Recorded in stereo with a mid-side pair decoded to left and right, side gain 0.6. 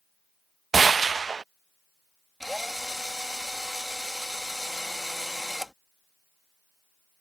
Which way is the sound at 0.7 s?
25° right.